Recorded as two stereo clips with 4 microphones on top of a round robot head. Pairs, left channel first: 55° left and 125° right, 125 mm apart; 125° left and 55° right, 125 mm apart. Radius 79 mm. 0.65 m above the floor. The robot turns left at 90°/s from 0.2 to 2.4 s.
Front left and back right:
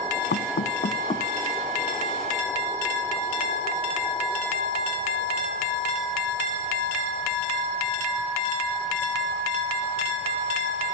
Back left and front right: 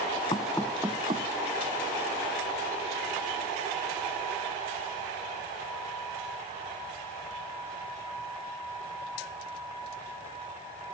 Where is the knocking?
70° left; by 1.3 s 20° right.